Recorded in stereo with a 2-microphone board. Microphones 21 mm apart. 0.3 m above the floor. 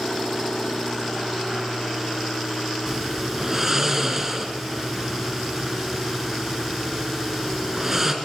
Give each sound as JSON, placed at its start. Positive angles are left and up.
{"t": 2.9, "sound": "snoring", "side_deg": -15, "distance_m": 3.0}